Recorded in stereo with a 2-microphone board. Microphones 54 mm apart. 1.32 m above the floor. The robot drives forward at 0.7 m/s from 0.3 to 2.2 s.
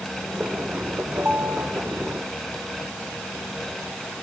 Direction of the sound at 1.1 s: 50° right (ahead or behind).